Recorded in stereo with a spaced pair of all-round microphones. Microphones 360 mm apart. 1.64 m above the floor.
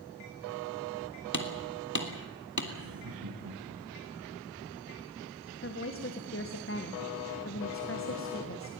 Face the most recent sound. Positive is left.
turn(degrees=35)  # may be behind; listen again after turning